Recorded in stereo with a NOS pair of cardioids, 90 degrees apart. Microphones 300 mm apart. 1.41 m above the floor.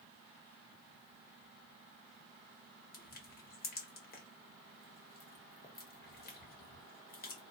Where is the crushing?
30° left, 1.1 m.